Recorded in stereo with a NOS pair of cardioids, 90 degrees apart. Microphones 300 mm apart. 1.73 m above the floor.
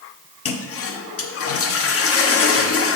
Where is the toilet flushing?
50° left, 1.0 m.